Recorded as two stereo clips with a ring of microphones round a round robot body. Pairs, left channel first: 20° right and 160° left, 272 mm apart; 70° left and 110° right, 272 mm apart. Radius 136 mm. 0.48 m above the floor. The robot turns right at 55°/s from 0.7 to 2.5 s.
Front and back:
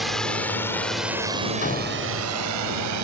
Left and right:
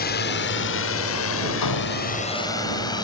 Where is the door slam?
40° left; by 2.3 s 75° left.